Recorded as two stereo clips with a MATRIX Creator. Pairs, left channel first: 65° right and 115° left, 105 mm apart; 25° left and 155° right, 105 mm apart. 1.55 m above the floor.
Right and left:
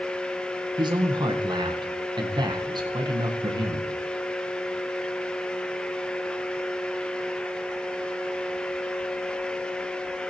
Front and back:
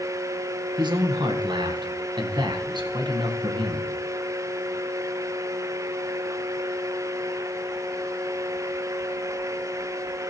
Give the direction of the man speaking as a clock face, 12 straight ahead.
7 o'clock.